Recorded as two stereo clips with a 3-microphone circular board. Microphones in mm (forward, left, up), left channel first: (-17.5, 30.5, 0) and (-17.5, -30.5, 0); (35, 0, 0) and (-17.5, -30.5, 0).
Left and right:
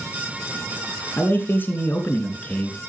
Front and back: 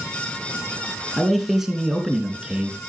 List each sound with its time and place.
1.2 s a man speaking: 115° left, 2.5 m; by 2.8 s 145° left, 2.5 m